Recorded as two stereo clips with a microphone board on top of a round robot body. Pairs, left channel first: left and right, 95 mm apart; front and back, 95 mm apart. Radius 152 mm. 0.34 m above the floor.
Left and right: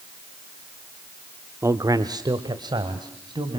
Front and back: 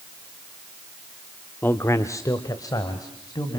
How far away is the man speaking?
About 1.0 m.